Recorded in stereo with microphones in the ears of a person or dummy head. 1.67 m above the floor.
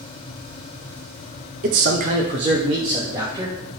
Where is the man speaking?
40° right (ahead or behind), 0.5 m; by 3.5 s 20° right (ahead or behind), 1.7 m.